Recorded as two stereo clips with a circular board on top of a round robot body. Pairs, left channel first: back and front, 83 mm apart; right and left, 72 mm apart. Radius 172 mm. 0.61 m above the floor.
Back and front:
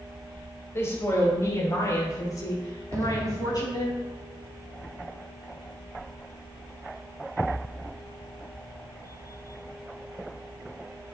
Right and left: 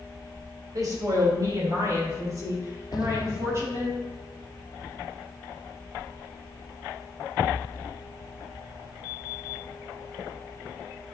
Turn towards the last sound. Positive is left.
turn(degrees=-55)